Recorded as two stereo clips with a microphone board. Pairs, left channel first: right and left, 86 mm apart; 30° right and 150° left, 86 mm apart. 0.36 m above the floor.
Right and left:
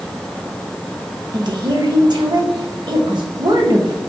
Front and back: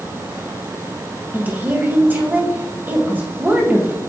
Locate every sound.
1.3 s a woman speaking: 85° left, 1.9 m